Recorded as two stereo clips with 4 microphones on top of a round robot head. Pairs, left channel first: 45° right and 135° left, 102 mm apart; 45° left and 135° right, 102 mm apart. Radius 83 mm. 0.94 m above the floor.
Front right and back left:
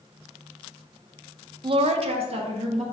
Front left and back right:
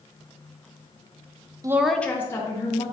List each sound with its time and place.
1.6 s a woman speaking: 170° left, 0.5 m; by 2.8 s 100° left, 1.9 m